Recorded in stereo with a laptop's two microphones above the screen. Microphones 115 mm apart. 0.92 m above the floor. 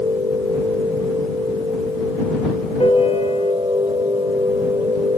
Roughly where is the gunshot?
I don't hear a gunshot.